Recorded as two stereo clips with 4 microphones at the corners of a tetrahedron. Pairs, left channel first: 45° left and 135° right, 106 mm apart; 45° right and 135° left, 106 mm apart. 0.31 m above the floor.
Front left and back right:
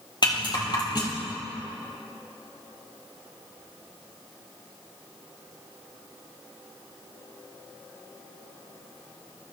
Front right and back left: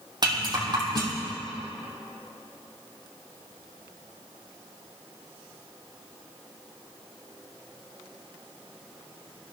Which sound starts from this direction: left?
A rattle, at 0.2 s.